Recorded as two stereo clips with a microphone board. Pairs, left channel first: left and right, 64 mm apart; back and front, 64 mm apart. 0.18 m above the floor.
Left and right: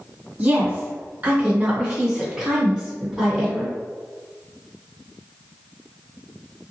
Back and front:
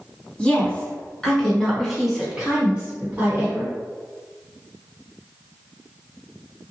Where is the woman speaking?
130° right, 1.8 m; by 3.7 s straight ahead, 1.6 m.